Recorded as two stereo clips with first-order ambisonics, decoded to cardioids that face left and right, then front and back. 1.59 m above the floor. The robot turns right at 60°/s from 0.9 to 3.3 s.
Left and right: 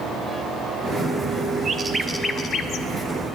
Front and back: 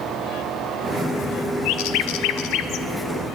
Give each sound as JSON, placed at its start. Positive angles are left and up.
{"t": 1.6, "sound": "a bird", "azimuth_deg": -25, "distance_m": 0.5}